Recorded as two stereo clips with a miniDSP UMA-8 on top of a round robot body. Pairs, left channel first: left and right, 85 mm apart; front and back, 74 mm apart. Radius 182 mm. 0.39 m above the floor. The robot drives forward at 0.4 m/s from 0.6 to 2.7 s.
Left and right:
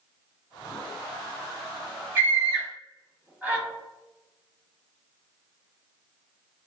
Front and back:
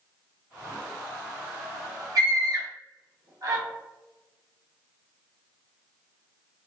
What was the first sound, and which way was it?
A scream, 160° right.